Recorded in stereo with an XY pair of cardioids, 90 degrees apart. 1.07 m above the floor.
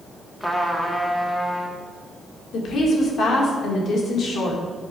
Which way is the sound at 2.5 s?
65° left.